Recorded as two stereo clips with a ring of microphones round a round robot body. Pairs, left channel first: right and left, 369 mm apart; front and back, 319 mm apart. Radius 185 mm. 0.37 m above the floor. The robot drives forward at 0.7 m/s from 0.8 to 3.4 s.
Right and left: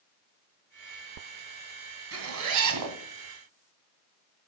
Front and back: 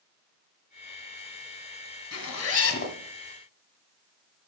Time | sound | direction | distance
2.1 | a zipper | 40° left | 2 m